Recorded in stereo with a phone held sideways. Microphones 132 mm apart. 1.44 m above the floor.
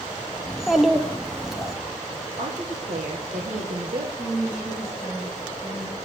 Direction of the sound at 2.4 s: 70° right (ahead or behind).